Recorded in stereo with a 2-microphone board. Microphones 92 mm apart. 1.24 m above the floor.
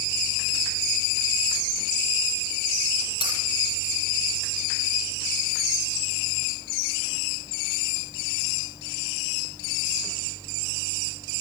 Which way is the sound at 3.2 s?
65° left (ahead or behind).